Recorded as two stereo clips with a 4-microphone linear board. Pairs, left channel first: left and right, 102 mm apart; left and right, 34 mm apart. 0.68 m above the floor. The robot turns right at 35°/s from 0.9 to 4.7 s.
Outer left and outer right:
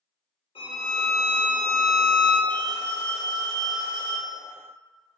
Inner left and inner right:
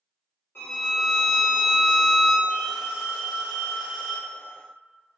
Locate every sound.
0.6 s a violin: 100° left, 1.2 m; by 2.4 s 155° left, 1.2 m
2.5 s a phone ringing: straight behind, 1.4 m; by 4.4 s 115° right, 1.4 m